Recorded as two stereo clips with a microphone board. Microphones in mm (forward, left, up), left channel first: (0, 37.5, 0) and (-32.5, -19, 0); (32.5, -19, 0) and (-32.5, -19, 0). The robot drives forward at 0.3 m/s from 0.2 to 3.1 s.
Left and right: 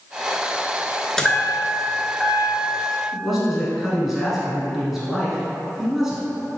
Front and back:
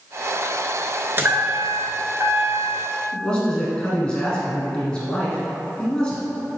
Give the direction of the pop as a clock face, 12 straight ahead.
No pop in this recording.